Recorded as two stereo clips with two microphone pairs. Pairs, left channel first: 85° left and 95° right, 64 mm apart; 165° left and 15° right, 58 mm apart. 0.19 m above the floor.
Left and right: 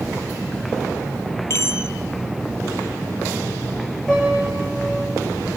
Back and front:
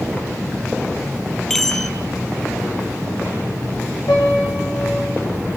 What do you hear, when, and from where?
1.5 s a chime: 80° left, 0.9 m
4.1 s a piano: straight behind, 7.5 m